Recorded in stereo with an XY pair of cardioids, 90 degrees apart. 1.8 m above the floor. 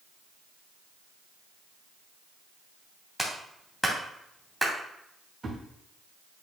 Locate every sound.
3.2 s a clap: straight ahead, 2.5 m
5.4 s a thud: 35° right, 3.5 m